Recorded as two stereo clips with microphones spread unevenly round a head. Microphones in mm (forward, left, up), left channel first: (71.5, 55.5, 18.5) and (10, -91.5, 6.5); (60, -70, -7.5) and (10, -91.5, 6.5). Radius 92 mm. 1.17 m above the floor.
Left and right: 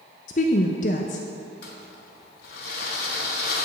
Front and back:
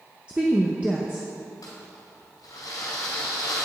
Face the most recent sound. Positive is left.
turn(degrees=55)